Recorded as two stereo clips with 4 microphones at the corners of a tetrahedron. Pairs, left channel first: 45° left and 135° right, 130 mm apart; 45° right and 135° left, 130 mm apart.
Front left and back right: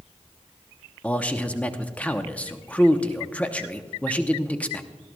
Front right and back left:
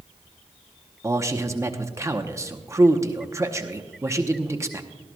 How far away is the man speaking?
About 0.8 m.